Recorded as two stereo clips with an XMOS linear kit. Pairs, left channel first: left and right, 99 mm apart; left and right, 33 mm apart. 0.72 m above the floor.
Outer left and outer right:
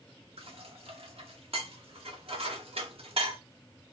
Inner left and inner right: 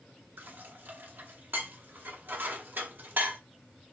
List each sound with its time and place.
0.4 s dishes clattering: 75° right (ahead or behind), 0.8 m